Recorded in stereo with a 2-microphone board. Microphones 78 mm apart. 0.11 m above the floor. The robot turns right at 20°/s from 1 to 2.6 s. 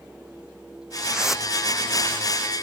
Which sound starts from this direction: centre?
A whoosh, at 1.1 s.